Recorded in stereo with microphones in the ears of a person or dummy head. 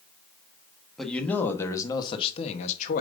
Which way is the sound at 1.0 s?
5° left (ahead or behind).